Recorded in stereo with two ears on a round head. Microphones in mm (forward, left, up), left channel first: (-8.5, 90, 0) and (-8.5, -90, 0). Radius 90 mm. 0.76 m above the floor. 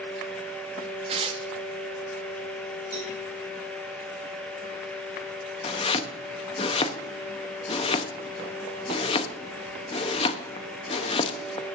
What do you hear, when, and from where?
1.1 s tearing paper: 30° right (ahead or behind), 1.0 m
2.9 s a cowbell: 15° right (ahead or behind), 6.5 m
5.6 s chopping: 25° left (ahead or behind), 0.7 m